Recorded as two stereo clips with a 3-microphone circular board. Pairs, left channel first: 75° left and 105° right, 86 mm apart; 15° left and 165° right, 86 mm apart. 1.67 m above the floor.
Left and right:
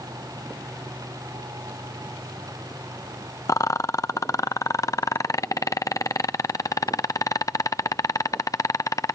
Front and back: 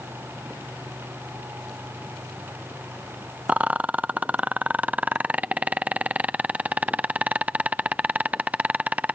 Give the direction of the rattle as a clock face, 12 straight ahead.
8 o'clock.